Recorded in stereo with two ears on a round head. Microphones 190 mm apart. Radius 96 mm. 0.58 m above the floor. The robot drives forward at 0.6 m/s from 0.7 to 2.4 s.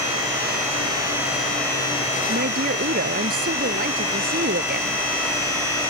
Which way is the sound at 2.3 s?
45° right (ahead or behind).